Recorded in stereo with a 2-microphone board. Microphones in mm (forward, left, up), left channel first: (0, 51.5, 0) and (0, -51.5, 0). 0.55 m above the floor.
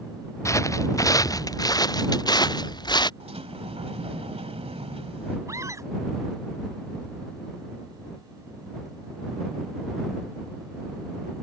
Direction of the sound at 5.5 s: 30° right (ahead or behind).